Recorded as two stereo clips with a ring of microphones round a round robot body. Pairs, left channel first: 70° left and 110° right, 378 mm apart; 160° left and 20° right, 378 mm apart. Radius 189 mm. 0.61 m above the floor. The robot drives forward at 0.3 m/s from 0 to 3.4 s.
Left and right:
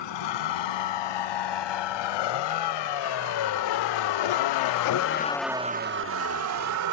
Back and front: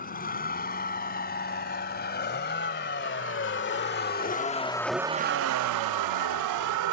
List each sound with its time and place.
0.0 s a vehicle: 90° left; by 6.9 s 65° right